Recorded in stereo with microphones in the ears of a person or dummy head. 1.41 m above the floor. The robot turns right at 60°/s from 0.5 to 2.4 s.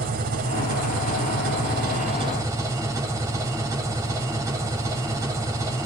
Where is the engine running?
135° right, 5 m; by 5.9 s 20° right, 5 m.